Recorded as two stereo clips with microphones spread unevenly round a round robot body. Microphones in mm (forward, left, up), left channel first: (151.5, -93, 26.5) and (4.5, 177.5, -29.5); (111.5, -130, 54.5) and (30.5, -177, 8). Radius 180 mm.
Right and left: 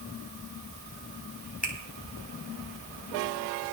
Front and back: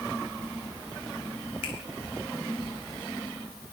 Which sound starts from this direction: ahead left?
A finger snap, at 1.6 s.